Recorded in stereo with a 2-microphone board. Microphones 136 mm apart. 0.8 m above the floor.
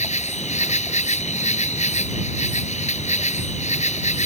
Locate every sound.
0.0 s an insect: 60° left (ahead or behind)